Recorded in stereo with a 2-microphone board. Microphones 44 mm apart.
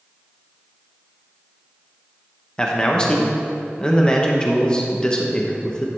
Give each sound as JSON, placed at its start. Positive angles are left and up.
{"t": 2.6, "sound": "a man speaking", "side_deg": 15, "distance_m": 0.8}